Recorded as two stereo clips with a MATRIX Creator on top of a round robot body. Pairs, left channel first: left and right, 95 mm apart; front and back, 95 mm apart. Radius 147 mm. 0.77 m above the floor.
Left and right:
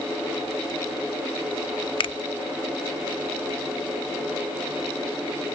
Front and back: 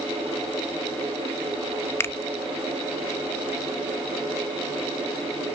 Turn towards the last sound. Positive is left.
turn(degrees=65)